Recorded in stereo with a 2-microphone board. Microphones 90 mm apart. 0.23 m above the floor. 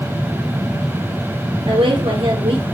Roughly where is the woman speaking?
Right.